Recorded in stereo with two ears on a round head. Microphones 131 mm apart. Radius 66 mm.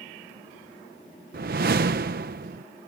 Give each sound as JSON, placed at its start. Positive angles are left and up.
{"t": 1.3, "sound": "a whoosh", "side_deg": -65}